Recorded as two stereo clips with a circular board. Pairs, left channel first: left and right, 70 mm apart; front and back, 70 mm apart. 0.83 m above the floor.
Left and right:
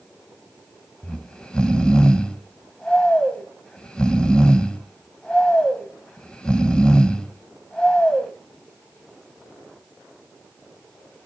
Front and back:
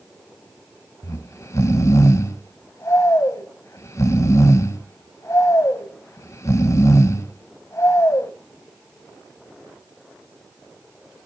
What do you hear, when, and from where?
1.0 s snoring: 15° left, 0.9 m